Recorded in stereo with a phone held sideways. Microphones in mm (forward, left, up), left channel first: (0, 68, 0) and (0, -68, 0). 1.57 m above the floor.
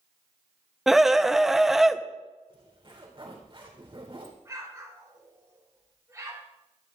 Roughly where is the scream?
Centre.